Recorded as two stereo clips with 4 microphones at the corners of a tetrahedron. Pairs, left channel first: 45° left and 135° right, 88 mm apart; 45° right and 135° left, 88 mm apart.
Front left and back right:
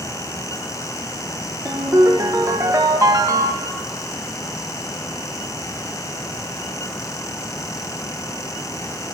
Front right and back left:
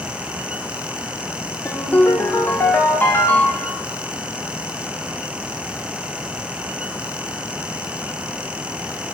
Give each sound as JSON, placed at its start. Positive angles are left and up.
{"t": 1.6, "sound": "a ringtone", "azimuth_deg": -100, "distance_m": 1.3}